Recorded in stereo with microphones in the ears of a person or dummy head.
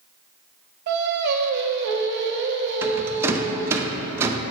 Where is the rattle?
10° right (ahead or behind), 0.5 m.